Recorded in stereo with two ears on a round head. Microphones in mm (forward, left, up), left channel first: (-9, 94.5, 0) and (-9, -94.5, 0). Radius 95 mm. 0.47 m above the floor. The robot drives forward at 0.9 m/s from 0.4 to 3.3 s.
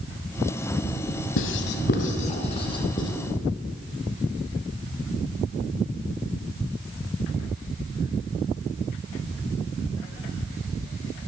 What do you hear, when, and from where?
1.4 s writing: 70° left (ahead or behind), 0.8 m; by 3.1 s 20° left (ahead or behind), 2.0 m